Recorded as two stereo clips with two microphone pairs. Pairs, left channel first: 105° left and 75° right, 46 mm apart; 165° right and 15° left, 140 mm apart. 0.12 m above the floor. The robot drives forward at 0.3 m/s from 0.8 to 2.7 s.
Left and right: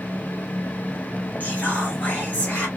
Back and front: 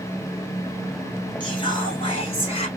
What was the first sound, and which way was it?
Whispering, 145° left.